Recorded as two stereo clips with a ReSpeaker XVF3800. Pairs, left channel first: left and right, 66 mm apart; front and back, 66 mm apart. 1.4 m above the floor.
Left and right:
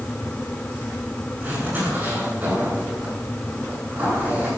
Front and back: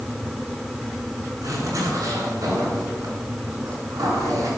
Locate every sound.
1.4 s a zipper: 145° right, 9 m